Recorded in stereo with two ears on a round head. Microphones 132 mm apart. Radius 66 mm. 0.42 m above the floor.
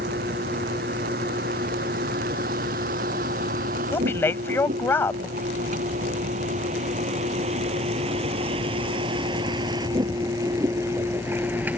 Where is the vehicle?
70° right (ahead or behind); by 11.8 s 10° right (ahead or behind).